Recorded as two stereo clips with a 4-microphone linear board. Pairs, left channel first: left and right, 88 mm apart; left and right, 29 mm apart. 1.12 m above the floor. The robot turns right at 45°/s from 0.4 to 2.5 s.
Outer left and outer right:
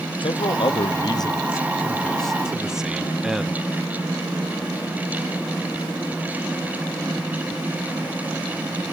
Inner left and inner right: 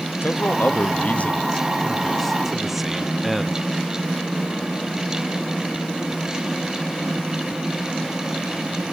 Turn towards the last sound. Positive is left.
turn(degrees=-175)